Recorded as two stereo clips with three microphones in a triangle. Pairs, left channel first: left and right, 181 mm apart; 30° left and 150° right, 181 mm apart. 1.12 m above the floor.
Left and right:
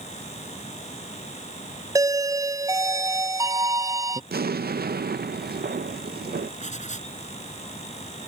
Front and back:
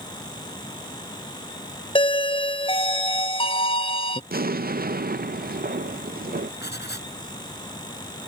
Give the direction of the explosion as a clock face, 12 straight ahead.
4 o'clock.